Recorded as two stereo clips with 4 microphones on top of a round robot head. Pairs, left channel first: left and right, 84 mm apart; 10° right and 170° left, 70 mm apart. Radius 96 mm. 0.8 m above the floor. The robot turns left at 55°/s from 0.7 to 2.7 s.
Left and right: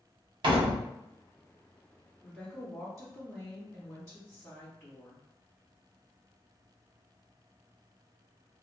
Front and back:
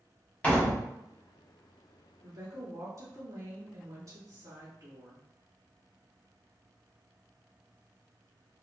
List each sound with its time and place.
0.4 s a door slam: 80° right, 0.7 m; by 0.9 s 90° right, 0.7 m
2.2 s a woman speaking: straight behind, 1.7 m; by 5.2 s 155° left, 1.7 m